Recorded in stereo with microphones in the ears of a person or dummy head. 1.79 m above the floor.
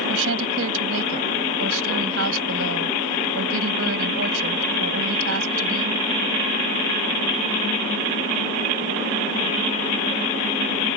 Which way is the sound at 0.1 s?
80° right.